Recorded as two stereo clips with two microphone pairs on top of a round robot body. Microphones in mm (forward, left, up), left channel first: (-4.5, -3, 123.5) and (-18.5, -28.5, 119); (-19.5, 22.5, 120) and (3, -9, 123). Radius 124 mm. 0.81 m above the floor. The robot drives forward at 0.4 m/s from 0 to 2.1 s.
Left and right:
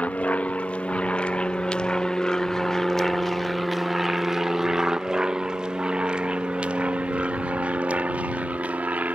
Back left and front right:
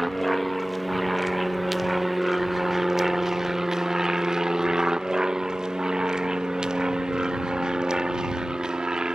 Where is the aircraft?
40° left; by 9.2 s 125° right.